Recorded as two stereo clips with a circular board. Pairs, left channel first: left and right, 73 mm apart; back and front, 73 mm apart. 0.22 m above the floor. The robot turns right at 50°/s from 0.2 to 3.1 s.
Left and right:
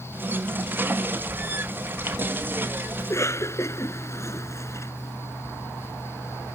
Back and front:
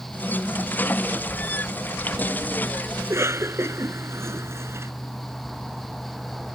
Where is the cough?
40° left; by 4.9 s 45° left.